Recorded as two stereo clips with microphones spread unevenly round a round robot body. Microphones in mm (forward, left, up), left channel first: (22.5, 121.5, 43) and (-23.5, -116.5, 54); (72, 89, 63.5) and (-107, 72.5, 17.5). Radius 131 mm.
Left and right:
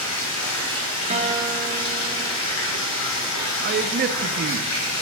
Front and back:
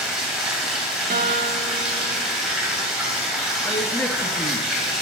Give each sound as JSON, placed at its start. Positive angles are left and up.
{"t": 0.0, "sound": "running water", "azimuth_deg": 95, "distance_m": 3.0}
{"t": 1.1, "sound": "a guitar", "azimuth_deg": -165, "distance_m": 1.1}
{"t": 3.6, "sound": "a man speaking", "azimuth_deg": -95, "distance_m": 0.6}